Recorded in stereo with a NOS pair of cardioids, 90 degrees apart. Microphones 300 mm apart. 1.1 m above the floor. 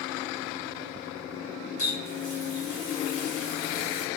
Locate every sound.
1.8 s a running tap: 50° left, 1.2 m